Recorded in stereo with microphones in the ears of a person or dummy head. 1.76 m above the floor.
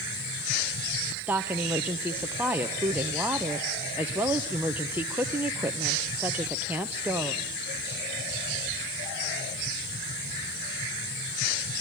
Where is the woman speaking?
10° right (ahead or behind), 1.3 m.